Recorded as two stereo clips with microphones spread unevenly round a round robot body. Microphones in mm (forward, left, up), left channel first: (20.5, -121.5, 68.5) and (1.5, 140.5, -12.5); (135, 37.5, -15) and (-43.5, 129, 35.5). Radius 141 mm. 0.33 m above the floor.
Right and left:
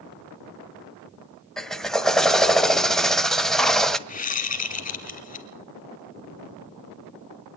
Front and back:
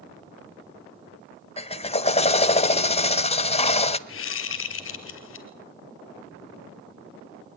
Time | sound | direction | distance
1.6 | a drill | 15° left | 1.4 m
4.1 | a whoosh | 25° right | 3.5 m